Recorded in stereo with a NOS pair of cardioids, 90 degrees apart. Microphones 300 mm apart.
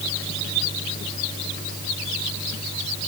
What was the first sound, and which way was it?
Only background noise.